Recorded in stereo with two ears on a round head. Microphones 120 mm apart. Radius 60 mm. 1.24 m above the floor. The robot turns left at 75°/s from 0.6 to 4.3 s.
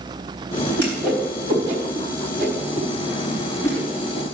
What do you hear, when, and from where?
0.8 s a whoosh: 15° left (ahead or behind), 4 m; by 4.2 s 65° left (ahead or behind), 4 m